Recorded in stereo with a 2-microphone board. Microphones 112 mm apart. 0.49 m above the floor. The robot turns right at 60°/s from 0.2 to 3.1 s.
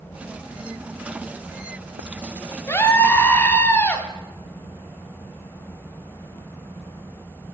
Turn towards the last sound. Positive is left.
turn(degrees=20)  # may be behind; listen again after turning